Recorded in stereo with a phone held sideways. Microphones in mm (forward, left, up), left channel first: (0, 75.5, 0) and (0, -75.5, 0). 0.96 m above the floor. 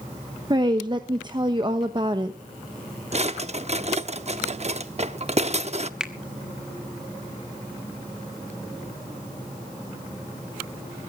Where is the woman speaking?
30° right (ahead or behind), 1.0 m.